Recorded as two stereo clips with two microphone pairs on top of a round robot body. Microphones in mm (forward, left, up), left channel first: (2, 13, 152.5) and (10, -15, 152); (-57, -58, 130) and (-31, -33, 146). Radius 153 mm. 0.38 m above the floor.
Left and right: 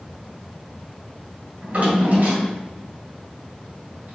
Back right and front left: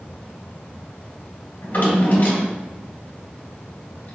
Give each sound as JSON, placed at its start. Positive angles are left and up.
{"t": 1.6, "sound": "a drawer", "azimuth_deg": -110, "distance_m": 1.7}